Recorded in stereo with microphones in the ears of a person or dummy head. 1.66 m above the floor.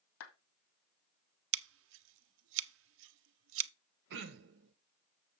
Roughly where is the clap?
Left.